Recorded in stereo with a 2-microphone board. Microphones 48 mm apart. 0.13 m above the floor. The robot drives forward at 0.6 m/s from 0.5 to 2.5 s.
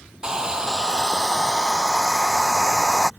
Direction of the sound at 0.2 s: 15° right (ahead or behind).